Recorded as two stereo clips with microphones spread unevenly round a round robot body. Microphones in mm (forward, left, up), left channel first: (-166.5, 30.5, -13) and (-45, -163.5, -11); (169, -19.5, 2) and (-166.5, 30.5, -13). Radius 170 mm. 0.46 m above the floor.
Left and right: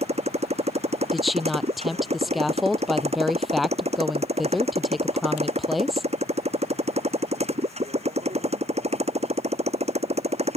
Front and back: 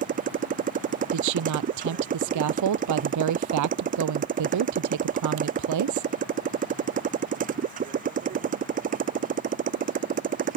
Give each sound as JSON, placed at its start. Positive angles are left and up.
{"t": 0.0, "sound": "a motorcycle", "azimuth_deg": -120}
{"t": 1.1, "sound": "a woman speaking", "azimuth_deg": -145}